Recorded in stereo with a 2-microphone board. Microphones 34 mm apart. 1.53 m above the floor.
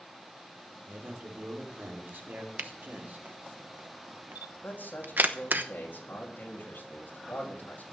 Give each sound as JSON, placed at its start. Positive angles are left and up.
{"t": 0.9, "sound": "a man speaking", "side_deg": -75, "distance_m": 4.0}
{"t": 2.6, "sound": "a camera shutter", "side_deg": -60, "distance_m": 0.9}
{"t": 4.6, "sound": "a man speaking", "side_deg": 60, "distance_m": 3.0}